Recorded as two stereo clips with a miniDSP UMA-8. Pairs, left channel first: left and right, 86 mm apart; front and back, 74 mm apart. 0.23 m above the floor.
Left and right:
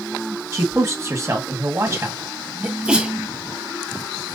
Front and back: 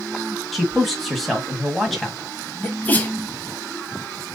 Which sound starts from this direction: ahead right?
A sneeze, at 2.6 s.